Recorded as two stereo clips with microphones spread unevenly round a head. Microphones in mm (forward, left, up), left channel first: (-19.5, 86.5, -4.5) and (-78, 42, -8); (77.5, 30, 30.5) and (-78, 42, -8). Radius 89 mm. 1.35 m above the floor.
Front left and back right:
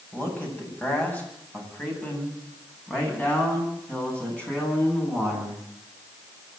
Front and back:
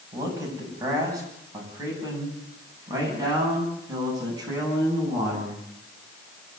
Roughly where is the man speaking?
Left.